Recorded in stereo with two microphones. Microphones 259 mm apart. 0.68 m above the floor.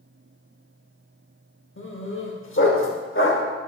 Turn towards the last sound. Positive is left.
turn(degrees=50)  # may be behind; listen again after turning